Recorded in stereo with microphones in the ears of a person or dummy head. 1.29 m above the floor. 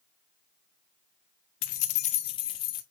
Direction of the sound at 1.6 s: 50° left (ahead or behind).